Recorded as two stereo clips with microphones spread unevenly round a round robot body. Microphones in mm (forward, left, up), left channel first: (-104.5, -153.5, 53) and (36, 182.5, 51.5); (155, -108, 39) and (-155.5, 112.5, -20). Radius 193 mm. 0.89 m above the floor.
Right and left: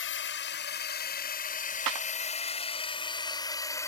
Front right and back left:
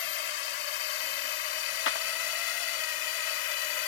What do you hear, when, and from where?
0.0 s a drone: 50° right; by 3.9 s 30° right
1.9 s a clap: 25° left